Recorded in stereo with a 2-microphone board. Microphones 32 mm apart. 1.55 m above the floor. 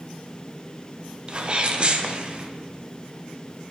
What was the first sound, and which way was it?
A sneeze, 35° right (ahead or behind).